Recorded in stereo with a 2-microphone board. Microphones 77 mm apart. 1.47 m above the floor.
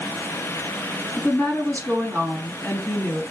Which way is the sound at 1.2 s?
20° left (ahead or behind).